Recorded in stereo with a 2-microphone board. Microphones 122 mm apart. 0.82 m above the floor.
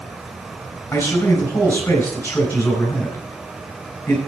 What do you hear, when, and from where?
0.9 s a man speaking: 15° left (ahead or behind), 4 m